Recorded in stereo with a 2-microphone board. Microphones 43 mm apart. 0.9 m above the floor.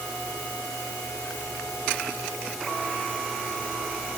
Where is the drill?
No drill in this recording.